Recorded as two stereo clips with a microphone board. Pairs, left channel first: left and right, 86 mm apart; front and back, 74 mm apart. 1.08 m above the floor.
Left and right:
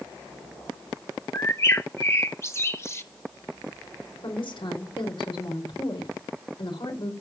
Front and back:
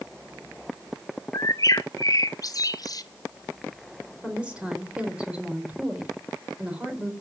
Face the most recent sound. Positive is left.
turn(degrees=105)